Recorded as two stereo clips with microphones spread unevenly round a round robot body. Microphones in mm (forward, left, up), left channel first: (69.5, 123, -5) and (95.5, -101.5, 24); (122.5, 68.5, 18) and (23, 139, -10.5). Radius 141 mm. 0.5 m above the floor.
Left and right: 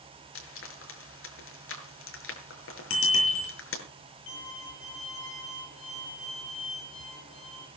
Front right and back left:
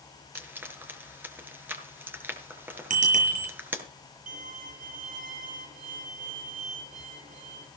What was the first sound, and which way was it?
Frying, 70° left.